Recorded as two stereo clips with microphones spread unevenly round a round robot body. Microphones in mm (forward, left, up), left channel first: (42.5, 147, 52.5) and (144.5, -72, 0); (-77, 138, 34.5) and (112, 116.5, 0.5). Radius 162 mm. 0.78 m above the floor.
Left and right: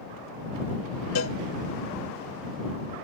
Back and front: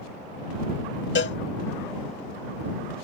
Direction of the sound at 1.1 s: 155° left.